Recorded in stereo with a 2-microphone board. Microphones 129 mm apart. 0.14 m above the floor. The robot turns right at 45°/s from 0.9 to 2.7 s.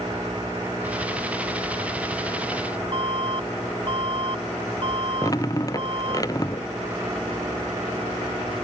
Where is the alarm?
45° right (ahead or behind).